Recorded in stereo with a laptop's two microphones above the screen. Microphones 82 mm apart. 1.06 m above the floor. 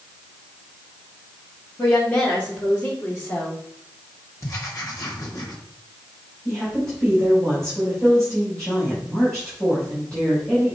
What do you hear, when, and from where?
1.8 s a woman speaking: 20° left (ahead or behind), 2.5 m; by 3.6 s 35° left (ahead or behind), 3 m
4.4 s writing: 40° left (ahead or behind), 1.9 m
6.5 s a woman speaking: 10° left (ahead or behind), 4 m